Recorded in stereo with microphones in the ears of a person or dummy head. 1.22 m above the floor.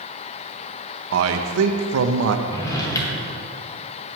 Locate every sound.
1.1 s a man speaking: 70° right (ahead or behind), 0.8 m
2.5 s a drawer: 20° left (ahead or behind), 2.5 m